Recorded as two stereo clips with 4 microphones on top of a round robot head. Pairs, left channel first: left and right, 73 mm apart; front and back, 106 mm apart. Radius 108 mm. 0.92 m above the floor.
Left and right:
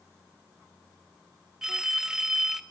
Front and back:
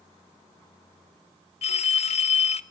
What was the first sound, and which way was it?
A phone ringing, 5° right.